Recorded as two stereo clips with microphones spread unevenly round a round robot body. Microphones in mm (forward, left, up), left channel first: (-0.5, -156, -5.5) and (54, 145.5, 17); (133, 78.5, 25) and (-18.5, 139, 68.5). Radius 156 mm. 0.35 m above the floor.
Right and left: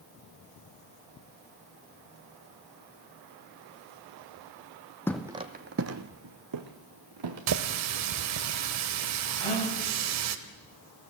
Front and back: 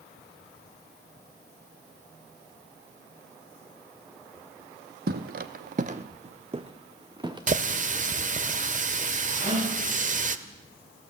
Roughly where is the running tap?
Left.